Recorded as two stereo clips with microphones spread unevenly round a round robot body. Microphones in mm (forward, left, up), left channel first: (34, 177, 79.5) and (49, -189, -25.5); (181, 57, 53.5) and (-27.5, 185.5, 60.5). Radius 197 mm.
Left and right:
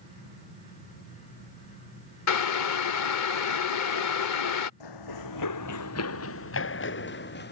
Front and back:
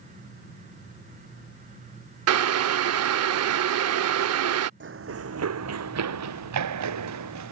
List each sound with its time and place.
2.3 s boiling: 145° left
4.8 s running footsteps: 110° left; by 7.5 s 155° left